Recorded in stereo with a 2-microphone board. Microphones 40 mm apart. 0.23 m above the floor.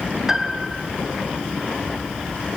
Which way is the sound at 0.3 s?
15° right (ahead or behind).